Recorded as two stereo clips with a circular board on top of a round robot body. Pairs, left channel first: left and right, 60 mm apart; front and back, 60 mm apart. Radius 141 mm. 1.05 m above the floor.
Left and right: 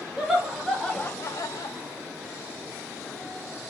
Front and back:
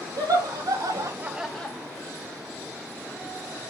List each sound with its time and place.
0.2 s laughter: 175° right, 1.4 m; by 1.8 s 65° left, 0.8 m